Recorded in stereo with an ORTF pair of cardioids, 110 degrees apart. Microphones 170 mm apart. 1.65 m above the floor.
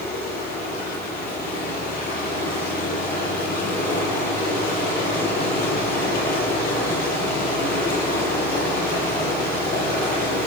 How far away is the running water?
About 10 m.